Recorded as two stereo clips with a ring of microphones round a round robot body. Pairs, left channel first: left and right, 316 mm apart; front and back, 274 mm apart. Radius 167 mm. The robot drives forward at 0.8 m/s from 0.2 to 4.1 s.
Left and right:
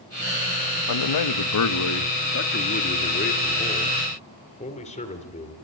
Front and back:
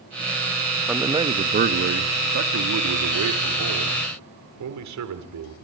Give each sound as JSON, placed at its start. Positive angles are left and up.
{"t": 0.9, "sound": "a man speaking", "azimuth_deg": 95, "distance_m": 1.0}